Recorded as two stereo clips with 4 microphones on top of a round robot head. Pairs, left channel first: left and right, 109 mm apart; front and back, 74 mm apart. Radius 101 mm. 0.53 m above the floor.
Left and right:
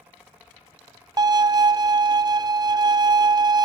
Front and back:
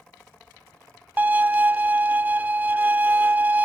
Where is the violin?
120° right, 0.8 m.